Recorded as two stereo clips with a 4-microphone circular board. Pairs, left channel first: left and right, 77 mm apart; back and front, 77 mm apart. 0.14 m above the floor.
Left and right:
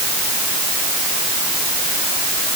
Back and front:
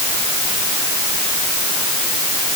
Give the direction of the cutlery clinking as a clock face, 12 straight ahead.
No cutlery clinking in this recording.